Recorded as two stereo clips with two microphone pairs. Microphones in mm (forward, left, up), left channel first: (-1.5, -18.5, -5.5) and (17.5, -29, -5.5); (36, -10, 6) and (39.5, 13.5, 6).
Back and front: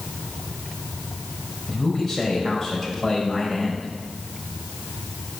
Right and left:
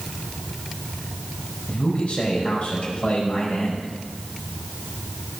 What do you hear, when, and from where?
1.7 s a man speaking: 130° right, 5 m